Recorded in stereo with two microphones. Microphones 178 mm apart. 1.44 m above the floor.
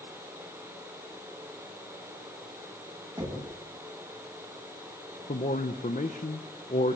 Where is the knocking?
25° right (ahead or behind), 8.5 m.